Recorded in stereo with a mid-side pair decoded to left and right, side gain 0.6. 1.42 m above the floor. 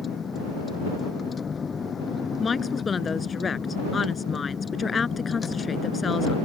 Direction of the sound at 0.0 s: 30° left.